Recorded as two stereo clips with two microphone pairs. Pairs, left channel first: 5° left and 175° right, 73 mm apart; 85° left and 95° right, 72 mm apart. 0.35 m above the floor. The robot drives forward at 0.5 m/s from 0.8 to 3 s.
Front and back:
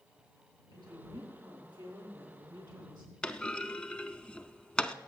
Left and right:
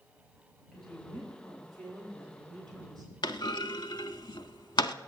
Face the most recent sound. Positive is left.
turn(degrees=85)